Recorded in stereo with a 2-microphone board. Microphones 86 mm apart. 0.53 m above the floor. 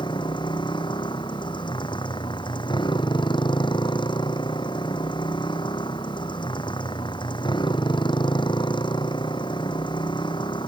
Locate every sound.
0.0 s a motorcycle: 65° left (ahead or behind)